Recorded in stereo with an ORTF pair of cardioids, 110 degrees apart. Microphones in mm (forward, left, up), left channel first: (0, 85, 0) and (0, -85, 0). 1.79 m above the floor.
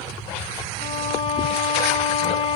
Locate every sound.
0.8 s a violin: 70° left, 1.8 m